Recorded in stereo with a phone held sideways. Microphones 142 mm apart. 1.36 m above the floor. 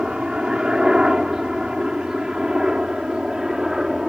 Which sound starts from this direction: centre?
A helicopter, at 0.0 s.